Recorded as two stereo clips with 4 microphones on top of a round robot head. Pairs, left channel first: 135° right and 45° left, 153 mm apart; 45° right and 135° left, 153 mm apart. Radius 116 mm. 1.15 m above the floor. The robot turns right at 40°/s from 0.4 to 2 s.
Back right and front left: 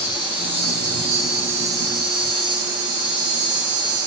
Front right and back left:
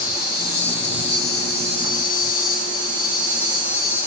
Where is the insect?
75° right, 3 m; by 4.1 s 10° right, 3 m.